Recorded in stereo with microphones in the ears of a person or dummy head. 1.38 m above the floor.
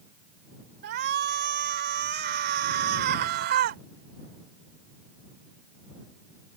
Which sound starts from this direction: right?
A shout, at 0.8 s.